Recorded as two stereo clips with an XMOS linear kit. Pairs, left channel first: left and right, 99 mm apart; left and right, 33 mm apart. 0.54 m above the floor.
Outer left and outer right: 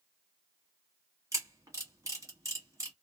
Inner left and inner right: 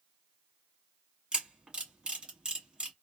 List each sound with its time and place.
1.3 s a camera shutter: 30° right (ahead or behind), 1.6 m